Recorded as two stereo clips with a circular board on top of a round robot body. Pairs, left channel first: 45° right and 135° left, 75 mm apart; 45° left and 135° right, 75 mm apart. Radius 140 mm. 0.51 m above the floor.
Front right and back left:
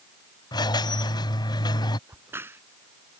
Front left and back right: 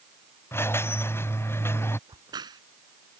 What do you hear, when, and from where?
0.5 s a squeak: 15° right
2.1 s a crack: 165° right